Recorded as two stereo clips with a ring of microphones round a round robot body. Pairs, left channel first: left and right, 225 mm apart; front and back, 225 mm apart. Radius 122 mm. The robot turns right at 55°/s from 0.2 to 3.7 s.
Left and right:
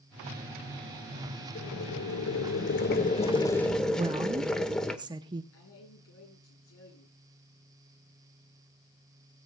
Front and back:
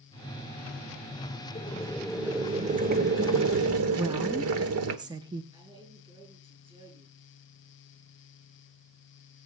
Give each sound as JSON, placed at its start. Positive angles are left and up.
{"t": 1.6, "sound": "boiling", "azimuth_deg": 60, "distance_m": 1.4}
{"t": 4.0, "sound": "a woman speaking", "azimuth_deg": -135, "distance_m": 0.7}
{"t": 5.5, "sound": "a man speaking", "azimuth_deg": 115, "distance_m": 7.0}